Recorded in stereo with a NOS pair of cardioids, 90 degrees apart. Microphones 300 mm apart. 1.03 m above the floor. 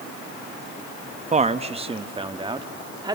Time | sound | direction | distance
1.3 | a man speaking | 25° right | 1.0 m